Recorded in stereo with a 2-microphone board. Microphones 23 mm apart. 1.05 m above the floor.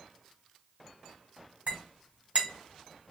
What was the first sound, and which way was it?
A clink, 60° right (ahead or behind).